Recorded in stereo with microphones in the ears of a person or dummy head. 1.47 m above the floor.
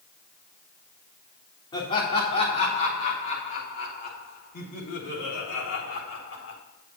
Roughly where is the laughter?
Left.